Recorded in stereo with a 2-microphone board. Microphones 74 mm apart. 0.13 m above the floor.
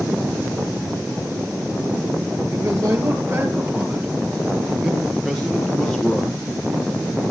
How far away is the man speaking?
About 3 m.